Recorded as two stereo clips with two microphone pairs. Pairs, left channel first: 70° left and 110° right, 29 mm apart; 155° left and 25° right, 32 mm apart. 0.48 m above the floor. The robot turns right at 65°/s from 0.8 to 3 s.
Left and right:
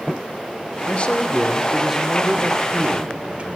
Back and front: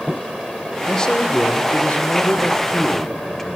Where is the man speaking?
90° left, 1.7 m; by 3.6 s 130° right, 1.7 m.